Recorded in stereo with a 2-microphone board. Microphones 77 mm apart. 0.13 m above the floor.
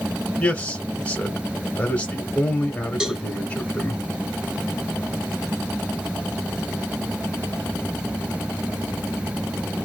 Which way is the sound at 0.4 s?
15° left (ahead or behind).